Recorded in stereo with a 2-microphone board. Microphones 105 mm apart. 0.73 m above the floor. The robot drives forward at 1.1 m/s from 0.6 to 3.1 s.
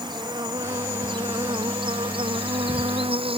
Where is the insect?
45° right (ahead or behind); by 3.4 s 60° right (ahead or behind).